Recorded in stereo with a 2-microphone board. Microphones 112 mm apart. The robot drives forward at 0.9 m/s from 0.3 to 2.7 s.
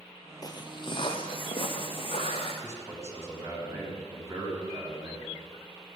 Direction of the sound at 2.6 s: 25° right (ahead or behind).